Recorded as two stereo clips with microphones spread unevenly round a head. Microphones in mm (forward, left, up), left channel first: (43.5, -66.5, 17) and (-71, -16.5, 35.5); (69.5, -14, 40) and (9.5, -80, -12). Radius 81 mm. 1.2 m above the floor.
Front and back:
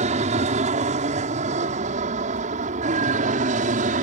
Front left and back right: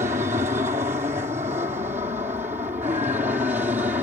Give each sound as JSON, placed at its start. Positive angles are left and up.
{"t": 0.0, "sound": "an aircraft", "azimuth_deg": 180}